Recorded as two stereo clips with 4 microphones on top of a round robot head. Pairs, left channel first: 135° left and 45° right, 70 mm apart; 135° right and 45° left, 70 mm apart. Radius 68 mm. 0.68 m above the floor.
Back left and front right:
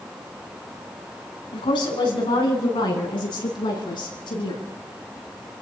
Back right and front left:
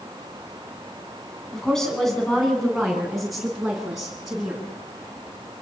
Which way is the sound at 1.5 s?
140° left.